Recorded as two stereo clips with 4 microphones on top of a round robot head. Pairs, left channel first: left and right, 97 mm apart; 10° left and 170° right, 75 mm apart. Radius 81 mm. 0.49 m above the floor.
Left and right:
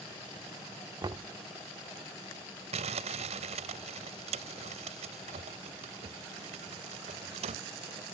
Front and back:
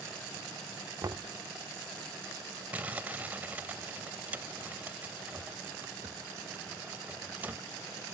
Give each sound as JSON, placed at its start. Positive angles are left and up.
{"t": 1.0, "sound": "knocking", "azimuth_deg": -130}
{"t": 2.7, "sound": "crumpling", "azimuth_deg": -95}